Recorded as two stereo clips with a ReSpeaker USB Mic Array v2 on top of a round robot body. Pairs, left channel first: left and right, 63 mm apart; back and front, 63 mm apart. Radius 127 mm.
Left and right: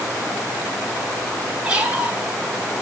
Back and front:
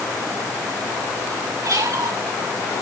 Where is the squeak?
20° right, 2 m.